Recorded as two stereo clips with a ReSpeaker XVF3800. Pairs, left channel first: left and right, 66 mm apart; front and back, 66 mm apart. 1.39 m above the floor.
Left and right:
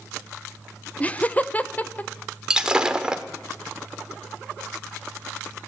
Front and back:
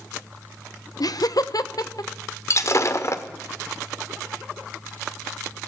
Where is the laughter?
20° left, 0.7 m; by 2.1 s 25° left, 1.4 m.